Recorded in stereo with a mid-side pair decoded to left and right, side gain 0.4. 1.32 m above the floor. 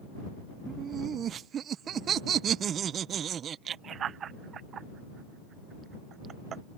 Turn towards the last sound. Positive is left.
turn(degrees=-65)